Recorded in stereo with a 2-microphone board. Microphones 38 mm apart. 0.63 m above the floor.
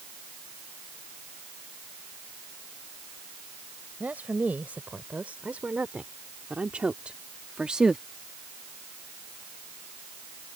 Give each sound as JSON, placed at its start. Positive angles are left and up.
{"t": 4.0, "sound": "a woman speaking", "side_deg": -45}